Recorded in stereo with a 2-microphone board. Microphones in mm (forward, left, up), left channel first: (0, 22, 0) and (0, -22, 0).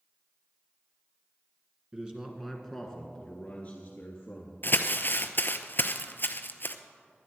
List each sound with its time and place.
1.9 s a man speaking: 20° right (ahead or behind), 1.6 m; by 4.6 s 45° left (ahead or behind), 3 m
4.6 s crumpling: 50° left (ahead or behind), 0.7 m